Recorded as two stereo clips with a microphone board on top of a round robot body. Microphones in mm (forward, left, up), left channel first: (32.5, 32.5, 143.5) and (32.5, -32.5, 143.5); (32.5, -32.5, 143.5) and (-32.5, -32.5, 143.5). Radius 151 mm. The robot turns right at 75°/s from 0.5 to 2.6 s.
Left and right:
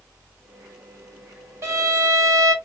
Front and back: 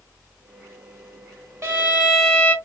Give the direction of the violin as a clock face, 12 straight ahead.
4 o'clock.